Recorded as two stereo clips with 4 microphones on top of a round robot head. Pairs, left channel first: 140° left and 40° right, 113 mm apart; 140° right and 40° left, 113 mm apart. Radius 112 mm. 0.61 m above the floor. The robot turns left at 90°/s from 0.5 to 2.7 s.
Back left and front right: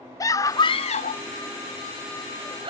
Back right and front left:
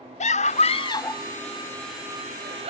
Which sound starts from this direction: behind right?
A scream, at 0.2 s.